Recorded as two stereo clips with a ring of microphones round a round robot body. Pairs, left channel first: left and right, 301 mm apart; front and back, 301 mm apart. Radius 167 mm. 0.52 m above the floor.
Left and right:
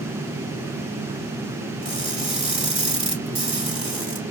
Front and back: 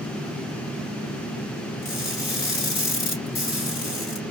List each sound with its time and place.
1.8 s crushing: 20° right, 3.5 m